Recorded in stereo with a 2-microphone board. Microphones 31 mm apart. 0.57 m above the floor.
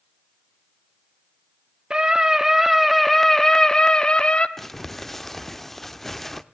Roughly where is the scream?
Right.